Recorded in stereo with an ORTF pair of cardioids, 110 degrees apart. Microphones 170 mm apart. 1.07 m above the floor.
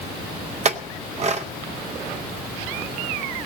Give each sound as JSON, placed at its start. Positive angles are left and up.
{"t": 0.7, "sound": "a clink", "azimuth_deg": -40, "distance_m": 0.7}